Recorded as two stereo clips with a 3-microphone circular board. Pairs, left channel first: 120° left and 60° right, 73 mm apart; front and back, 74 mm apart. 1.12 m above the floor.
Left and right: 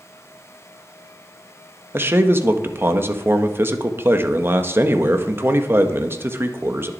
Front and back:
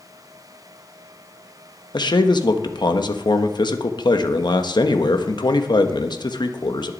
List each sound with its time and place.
1.9 s a man speaking: straight ahead, 1.3 m